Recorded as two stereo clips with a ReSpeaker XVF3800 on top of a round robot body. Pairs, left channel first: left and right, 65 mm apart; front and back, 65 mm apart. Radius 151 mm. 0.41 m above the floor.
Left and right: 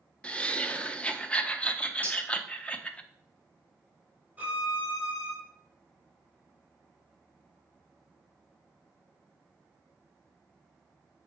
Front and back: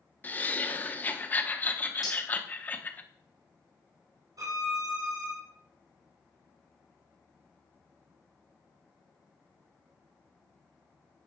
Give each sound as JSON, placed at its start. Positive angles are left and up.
{"t": 0.2, "sound": "laughter", "azimuth_deg": 35, "distance_m": 1.1}
{"t": 2.0, "sound": "cutlery clinking", "azimuth_deg": 25, "distance_m": 3.0}
{"t": 4.4, "sound": "a violin", "azimuth_deg": -160, "distance_m": 4.0}